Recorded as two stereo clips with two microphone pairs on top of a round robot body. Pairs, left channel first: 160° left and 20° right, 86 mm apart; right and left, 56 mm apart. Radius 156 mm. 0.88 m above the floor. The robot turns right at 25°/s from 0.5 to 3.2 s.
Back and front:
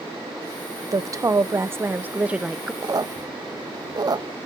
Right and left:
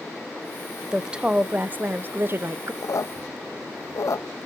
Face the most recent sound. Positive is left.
turn(degrees=-60)